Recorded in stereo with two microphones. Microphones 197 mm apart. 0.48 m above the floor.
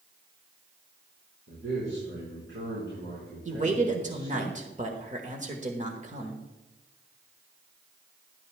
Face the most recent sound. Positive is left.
turn(degrees=-40)  # may be behind; listen again after turning